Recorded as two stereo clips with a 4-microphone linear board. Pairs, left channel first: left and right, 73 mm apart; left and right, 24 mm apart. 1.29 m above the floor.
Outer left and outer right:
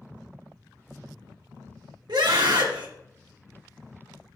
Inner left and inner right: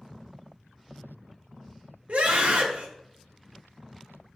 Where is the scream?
75° right (ahead or behind), 1.6 m.